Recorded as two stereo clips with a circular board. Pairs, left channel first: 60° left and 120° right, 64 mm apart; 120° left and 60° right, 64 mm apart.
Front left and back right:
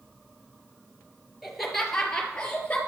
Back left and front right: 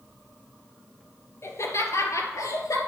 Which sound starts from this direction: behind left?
Laughter, at 1.4 s.